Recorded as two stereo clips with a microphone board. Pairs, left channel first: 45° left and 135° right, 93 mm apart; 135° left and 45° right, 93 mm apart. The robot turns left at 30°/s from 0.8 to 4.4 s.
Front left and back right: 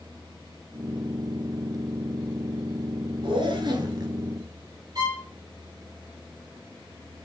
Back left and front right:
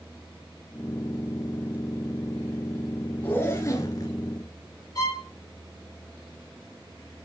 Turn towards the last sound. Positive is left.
turn(degrees=180)